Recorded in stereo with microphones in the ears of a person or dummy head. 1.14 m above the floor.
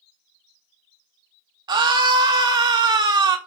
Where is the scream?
20° right (ahead or behind), 1.1 m.